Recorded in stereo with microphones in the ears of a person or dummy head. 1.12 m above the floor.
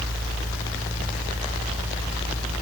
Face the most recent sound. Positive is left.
No sound to turn to.